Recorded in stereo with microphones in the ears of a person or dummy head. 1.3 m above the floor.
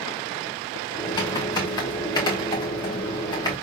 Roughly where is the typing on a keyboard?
Centre.